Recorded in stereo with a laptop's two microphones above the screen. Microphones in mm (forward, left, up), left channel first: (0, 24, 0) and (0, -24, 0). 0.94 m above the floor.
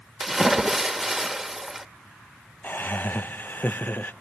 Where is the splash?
5° right (ahead or behind), 1.1 m.